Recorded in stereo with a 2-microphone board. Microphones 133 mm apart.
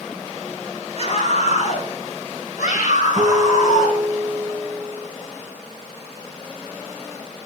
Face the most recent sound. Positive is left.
turn(degrees=-35)  # may be behind; listen again after turning